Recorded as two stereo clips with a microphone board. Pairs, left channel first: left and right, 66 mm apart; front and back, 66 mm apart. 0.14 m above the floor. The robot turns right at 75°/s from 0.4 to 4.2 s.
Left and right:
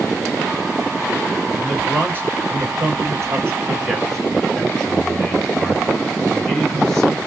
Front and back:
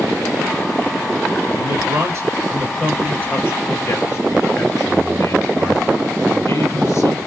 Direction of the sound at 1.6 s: 170° left.